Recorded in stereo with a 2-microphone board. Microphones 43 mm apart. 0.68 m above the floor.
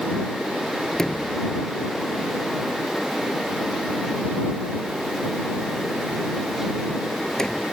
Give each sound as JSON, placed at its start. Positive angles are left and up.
{"t": 0.9, "sound": "a sliding door", "side_deg": 15}